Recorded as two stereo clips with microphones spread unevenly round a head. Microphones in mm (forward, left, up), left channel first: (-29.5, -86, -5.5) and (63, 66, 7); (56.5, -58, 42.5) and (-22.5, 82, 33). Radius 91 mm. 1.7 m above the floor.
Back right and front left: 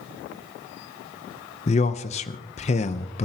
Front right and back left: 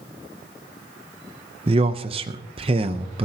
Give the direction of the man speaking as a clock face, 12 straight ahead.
6 o'clock.